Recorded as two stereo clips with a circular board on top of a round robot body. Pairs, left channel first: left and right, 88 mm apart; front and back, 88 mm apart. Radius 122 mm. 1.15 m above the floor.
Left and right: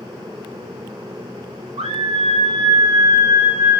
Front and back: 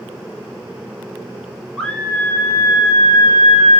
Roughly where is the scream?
Right.